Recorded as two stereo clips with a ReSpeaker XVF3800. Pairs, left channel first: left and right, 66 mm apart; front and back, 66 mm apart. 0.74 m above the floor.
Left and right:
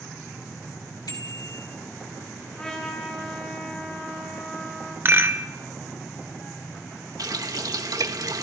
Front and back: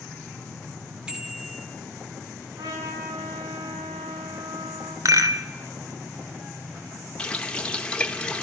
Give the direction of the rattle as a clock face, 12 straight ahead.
5 o'clock.